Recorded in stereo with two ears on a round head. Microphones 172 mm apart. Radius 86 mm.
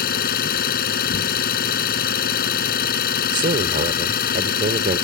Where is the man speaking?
40° right (ahead or behind).